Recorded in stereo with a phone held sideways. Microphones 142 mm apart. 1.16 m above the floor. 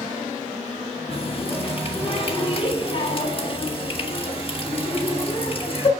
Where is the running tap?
40° left (ahead or behind), 1.6 m.